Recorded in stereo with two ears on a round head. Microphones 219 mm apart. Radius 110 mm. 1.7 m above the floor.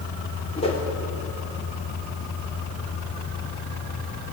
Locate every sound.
0.6 s a whoosh: 25° left (ahead or behind), 3 m